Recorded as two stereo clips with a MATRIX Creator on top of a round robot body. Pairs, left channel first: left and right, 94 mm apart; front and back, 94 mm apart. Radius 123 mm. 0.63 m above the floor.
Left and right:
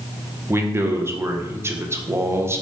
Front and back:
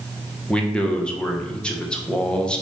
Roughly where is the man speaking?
Right.